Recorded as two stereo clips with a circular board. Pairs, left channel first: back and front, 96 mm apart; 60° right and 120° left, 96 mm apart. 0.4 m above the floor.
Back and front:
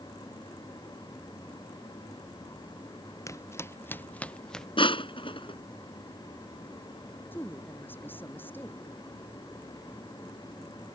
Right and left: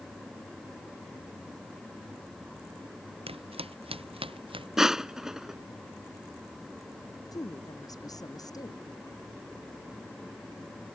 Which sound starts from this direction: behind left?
Footsteps, at 3.3 s.